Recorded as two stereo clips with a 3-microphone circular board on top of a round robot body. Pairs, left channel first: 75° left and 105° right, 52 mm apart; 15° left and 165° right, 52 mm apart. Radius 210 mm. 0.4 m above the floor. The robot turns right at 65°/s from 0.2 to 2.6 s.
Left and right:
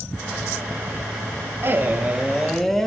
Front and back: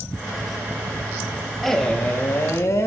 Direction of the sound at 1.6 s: 75° right.